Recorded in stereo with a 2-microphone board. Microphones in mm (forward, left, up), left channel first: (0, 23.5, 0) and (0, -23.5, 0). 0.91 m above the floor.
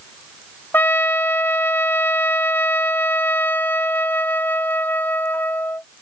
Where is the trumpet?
45° left (ahead or behind).